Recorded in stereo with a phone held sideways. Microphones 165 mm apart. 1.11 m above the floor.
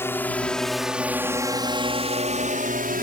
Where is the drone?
15° left (ahead or behind); by 3.0 s 65° right (ahead or behind).